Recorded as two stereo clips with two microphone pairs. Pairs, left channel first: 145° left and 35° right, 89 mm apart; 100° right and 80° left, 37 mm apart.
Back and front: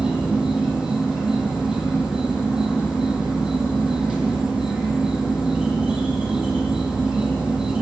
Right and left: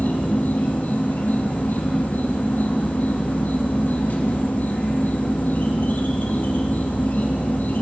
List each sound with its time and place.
0.0 s an insect: 115° right, 1.9 m